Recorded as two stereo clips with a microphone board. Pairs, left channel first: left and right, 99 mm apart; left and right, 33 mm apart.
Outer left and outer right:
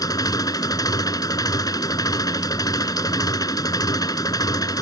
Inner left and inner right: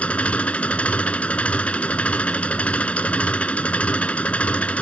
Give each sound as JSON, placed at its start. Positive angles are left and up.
{"t": 0.0, "sound": "an engine running", "side_deg": 40}